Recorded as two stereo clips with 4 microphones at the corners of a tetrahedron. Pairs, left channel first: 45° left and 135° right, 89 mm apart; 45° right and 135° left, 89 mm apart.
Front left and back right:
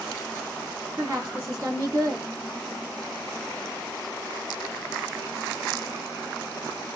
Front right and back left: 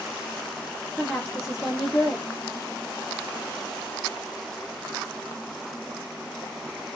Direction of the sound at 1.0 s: 135° right.